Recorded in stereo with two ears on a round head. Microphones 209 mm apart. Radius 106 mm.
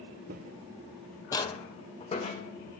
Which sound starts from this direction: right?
Footsteps, at 0.3 s.